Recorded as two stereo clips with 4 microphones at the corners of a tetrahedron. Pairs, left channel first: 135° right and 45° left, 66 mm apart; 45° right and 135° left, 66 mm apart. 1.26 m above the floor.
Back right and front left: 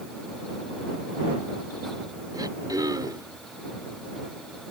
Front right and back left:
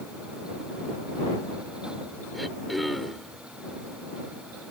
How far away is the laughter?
I don't hear laughter.